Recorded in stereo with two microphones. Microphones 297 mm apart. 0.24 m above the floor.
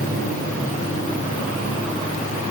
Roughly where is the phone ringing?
I don't hear a phone ringing.